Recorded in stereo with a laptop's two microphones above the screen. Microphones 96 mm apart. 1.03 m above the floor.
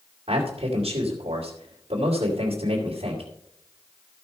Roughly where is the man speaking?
Right.